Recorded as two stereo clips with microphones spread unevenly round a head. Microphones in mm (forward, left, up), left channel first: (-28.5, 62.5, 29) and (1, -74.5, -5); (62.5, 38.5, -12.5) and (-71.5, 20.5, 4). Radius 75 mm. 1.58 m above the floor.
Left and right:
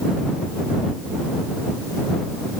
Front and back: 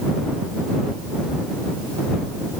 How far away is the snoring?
No snoring in this recording.